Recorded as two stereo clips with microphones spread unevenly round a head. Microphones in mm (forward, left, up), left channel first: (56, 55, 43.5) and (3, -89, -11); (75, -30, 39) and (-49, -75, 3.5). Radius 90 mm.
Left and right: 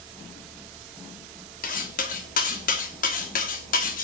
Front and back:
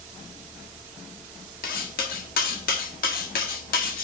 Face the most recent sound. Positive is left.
turn(degrees=45)